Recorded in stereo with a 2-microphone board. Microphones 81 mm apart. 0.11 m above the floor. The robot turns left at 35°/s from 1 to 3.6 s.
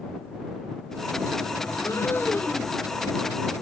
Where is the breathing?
45° left; by 2.8 s 10° left.